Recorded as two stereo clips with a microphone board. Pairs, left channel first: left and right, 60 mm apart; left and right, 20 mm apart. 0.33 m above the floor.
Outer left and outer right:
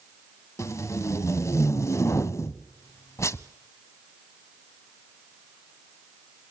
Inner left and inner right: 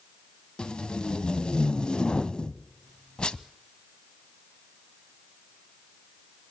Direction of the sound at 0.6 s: 55° left (ahead or behind).